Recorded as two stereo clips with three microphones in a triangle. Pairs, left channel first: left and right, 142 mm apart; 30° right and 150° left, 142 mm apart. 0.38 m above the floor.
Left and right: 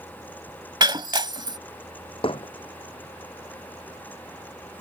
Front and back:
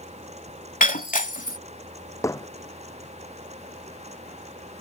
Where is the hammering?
40° left.